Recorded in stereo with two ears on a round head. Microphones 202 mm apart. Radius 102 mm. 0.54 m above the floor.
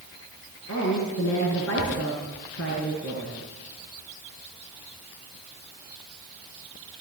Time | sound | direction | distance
0.7 | a woman speaking | 60° left (ahead or behind) | 8 m